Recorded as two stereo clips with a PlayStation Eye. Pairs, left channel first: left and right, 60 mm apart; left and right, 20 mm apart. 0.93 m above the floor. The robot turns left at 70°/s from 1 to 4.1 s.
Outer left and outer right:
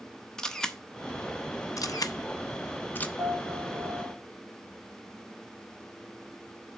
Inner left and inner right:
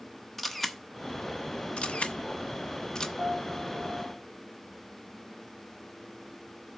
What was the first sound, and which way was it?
A camera shutter, 10° left (ahead or behind).